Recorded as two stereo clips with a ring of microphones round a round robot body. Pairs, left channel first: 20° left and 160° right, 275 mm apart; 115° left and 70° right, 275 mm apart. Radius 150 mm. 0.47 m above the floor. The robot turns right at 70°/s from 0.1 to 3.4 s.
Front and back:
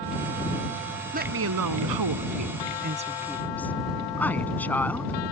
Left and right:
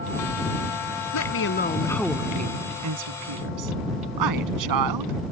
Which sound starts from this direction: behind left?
A woman speaking, at 1.1 s.